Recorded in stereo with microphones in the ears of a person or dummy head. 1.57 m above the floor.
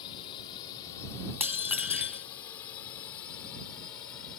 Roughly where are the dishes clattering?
Centre.